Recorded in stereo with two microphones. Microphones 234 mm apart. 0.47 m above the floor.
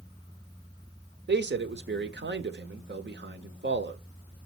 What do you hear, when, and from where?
1.3 s a man speaking: 50° right (ahead or behind), 1.0 m